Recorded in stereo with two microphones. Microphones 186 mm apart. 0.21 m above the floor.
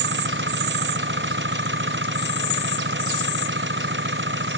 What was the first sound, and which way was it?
An engine running, 85° right.